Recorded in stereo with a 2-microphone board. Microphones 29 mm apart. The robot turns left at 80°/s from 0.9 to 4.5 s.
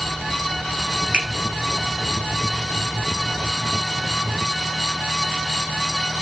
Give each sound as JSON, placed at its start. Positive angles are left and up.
{"t": 1.1, "sound": "a finger snap", "side_deg": -30, "distance_m": 1.7}